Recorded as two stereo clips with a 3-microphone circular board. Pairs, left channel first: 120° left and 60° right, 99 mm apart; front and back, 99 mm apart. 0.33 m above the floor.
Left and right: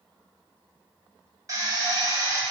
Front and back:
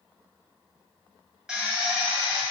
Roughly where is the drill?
Right.